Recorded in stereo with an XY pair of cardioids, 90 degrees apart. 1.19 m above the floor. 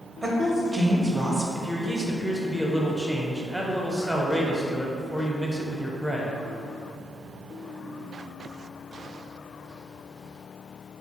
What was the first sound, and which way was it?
A woman speaking, 10° right.